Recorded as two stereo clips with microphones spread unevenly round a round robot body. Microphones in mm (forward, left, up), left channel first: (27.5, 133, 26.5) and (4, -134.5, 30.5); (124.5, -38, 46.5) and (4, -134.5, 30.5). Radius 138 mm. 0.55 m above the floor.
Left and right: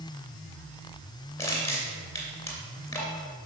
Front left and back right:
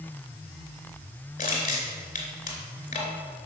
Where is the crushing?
5° left, 3 m.